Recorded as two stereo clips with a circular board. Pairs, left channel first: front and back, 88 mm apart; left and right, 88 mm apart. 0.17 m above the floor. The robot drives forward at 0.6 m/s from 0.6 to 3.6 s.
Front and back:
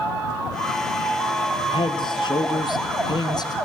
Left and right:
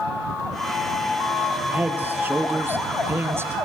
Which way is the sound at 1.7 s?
20° right.